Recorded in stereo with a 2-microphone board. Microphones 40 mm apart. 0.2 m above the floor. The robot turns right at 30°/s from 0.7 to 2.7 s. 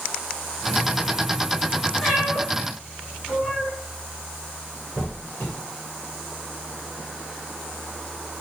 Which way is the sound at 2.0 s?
5° left (ahead or behind).